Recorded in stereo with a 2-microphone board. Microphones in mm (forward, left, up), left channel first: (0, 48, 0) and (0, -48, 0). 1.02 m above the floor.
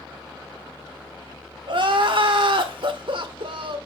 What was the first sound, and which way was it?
Crying, 60° right (ahead or behind).